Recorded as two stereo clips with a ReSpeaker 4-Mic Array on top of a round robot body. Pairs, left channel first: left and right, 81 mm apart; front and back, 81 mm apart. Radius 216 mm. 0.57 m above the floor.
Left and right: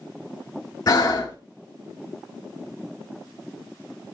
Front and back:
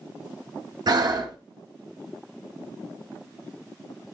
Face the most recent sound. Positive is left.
turn(degrees=140)